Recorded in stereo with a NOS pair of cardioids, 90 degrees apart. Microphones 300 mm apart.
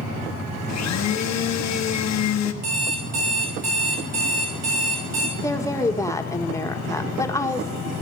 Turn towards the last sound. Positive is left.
turn(degrees=10)